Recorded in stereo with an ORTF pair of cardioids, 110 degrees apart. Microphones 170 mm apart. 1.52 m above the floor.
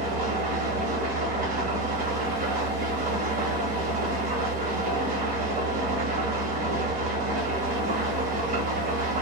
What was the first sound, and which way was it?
An engine running, 55° right.